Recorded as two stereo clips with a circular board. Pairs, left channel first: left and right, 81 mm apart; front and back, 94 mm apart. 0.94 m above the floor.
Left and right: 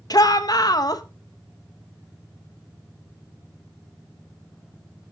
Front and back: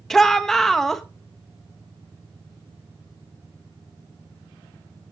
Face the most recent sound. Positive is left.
turn(degrees=85)